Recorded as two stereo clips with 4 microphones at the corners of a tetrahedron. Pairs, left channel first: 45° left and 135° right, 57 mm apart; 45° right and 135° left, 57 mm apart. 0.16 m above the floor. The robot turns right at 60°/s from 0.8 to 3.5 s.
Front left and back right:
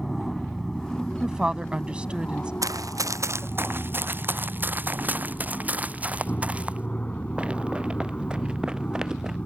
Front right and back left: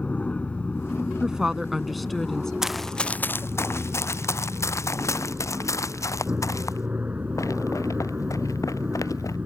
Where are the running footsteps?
145° right; by 9.4 s 55° right.